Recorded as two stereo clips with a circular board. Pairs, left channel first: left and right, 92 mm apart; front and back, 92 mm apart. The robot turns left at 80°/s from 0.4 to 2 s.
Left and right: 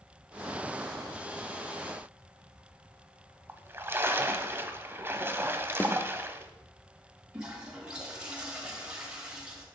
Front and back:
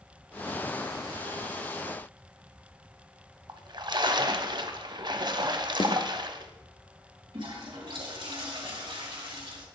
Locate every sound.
3.5 s a splash: 150° right, 0.8 m
5.8 s a snare drum: 25° left, 1.1 m
7.3 s a toilet flushing: 170° right, 3 m